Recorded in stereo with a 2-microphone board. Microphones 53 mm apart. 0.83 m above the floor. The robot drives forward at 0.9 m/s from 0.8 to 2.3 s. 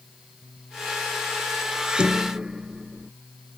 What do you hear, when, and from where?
1.7 s dishes clattering: 20° right (ahead or behind)